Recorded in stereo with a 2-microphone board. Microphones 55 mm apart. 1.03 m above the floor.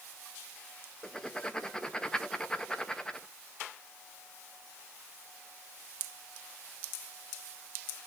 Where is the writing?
10° left (ahead or behind), 0.8 m.